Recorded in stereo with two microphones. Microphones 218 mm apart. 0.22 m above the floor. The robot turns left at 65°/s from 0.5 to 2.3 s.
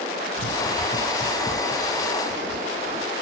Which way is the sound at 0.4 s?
60° left (ahead or behind).